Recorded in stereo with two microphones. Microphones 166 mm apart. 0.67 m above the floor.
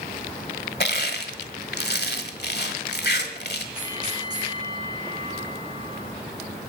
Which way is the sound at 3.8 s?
25° right (ahead or behind).